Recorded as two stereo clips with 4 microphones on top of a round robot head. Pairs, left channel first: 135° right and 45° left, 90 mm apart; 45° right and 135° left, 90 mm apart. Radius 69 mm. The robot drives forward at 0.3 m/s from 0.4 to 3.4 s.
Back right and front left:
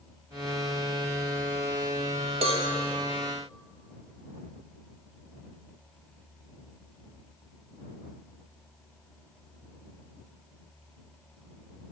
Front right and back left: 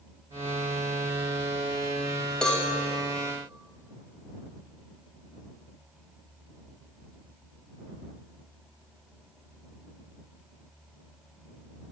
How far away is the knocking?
I don't hear knocking.